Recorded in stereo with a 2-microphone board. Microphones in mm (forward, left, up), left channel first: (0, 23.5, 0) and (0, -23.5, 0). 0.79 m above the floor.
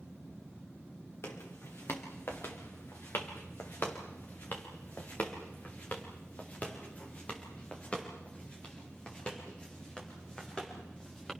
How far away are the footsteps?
About 4 m.